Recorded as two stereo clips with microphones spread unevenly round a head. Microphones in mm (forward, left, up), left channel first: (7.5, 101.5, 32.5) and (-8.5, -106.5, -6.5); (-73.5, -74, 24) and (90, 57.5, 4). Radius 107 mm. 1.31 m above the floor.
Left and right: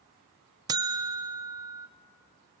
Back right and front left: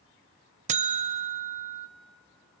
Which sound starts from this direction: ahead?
A buzzer, at 0.7 s.